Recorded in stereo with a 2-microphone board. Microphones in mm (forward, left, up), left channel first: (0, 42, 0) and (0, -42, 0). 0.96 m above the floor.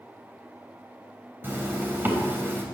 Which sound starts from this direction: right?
A zipper, at 1.4 s.